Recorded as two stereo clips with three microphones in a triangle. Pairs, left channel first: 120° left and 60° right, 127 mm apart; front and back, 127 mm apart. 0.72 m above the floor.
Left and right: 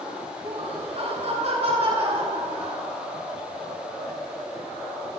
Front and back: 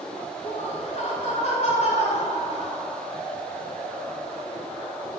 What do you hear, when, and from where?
0.4 s laughter: 25° right, 8.5 m; by 2.9 s 20° right, 7.5 m